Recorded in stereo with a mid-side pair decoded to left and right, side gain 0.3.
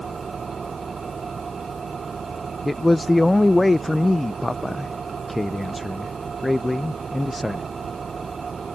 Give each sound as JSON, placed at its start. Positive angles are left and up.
{"t": 0.0, "sound": "an engine running", "azimuth_deg": -55}
{"t": 2.6, "sound": "a man speaking", "azimuth_deg": 20}